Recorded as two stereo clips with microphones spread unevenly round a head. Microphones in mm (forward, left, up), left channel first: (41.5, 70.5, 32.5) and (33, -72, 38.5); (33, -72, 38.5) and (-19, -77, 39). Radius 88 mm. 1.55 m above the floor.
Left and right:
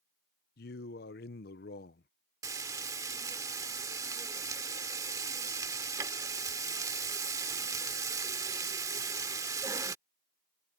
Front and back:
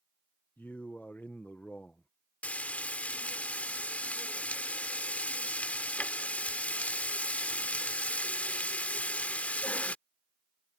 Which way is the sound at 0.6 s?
85° left.